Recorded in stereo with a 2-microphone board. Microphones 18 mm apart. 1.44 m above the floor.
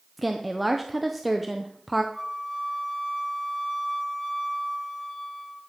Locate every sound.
0.2 s a woman speaking: 10° right (ahead or behind), 0.8 m
2.1 s a flute: 10° left (ahead or behind), 3 m